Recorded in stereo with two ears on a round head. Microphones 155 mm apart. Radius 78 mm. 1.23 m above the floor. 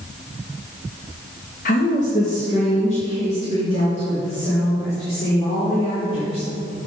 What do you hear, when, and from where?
1.6 s a woman speaking: 50° left (ahead or behind), 0.8 m; by 6.5 s 35° left (ahead or behind), 5 m